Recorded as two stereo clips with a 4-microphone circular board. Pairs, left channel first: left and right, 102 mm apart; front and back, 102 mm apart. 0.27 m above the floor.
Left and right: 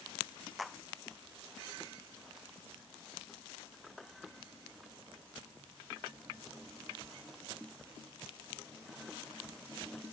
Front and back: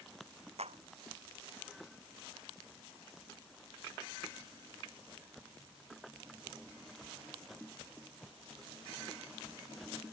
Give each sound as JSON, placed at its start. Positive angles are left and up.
{"t": 0.6, "sound": "a clap", "azimuth_deg": 180}